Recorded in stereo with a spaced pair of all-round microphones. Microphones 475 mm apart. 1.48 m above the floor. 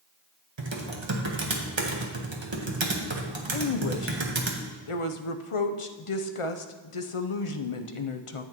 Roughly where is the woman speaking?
Left.